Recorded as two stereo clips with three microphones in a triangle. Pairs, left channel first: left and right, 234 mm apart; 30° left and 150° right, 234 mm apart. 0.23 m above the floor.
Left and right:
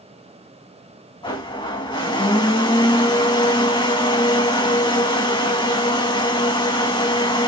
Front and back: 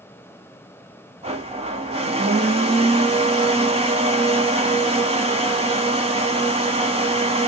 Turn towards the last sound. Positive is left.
turn(degrees=155)